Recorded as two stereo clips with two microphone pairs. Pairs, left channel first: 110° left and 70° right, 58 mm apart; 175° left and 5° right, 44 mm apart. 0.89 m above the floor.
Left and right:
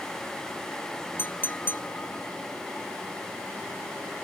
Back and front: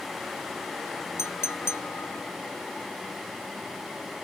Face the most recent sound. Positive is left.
turn(degrees=165)